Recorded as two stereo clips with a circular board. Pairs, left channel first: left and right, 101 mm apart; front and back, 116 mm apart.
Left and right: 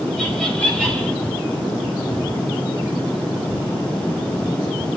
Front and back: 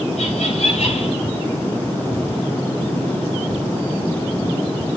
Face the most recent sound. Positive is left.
turn(degrees=-5)